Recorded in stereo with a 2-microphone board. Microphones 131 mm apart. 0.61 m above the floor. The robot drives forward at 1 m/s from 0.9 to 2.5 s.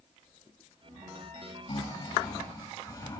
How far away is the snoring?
About 1.7 m.